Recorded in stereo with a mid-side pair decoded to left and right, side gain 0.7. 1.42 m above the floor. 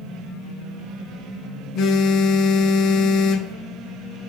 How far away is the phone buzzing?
About 0.6 m.